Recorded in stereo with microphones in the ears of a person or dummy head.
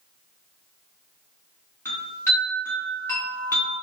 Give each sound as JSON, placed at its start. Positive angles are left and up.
{"t": 1.9, "sound": "a chime", "side_deg": 5, "distance_m": 1.4}